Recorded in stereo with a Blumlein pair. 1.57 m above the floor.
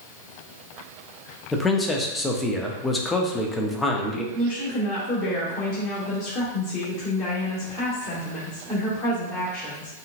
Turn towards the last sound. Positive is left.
turn(degrees=30)